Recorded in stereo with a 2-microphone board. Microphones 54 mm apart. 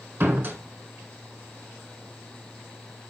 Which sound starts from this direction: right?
A door slam, at 0.2 s.